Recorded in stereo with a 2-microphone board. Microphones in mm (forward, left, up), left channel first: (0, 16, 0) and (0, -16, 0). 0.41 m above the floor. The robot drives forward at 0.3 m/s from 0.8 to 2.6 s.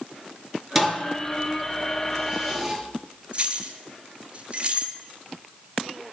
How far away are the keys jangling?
About 1.6 m.